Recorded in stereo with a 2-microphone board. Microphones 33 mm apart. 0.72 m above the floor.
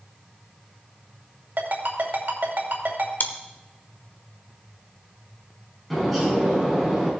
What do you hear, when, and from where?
1.6 s a ringtone: 75° right (ahead or behind), 2.5 m
3.2 s chewing: 65° left (ahead or behind), 1.0 m
5.9 s a bird: 5° left (ahead or behind), 4 m